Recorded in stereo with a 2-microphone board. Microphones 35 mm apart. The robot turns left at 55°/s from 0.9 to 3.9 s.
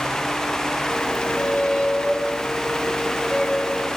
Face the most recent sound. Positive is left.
turn(degrees=20)